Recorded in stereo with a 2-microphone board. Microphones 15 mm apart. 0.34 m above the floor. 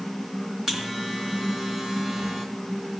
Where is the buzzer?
30° right (ahead or behind), 3 m.